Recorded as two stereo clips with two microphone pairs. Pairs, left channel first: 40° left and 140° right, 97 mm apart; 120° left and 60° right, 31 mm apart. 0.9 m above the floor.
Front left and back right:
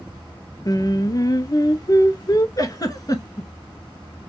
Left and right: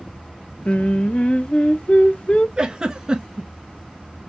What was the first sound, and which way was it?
Singing, 80° left.